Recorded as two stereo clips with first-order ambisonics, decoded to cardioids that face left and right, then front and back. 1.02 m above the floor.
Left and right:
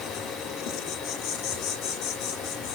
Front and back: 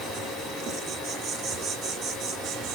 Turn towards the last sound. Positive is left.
turn(degrees=125)